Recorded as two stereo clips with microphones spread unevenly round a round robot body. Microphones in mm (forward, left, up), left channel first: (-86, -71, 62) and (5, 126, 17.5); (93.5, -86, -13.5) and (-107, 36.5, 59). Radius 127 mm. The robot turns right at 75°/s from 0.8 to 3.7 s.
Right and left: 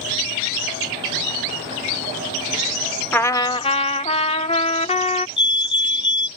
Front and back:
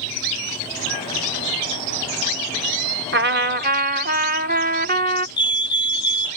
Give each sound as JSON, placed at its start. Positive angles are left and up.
{"t": 3.1, "sound": "a trumpet", "azimuth_deg": 150}
{"t": 5.4, "sound": "a fire alarm", "azimuth_deg": -80}